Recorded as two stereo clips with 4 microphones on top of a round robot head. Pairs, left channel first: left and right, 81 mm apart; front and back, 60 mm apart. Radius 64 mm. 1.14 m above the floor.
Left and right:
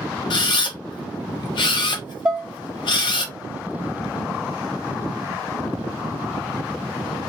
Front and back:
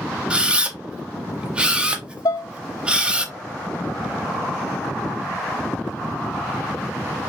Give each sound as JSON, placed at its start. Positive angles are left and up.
{"t": 0.3, "sound": "a camera shutter", "azimuth_deg": 110, "distance_m": 1.1}
{"t": 2.2, "sound": "dishes clattering", "azimuth_deg": -10, "distance_m": 0.6}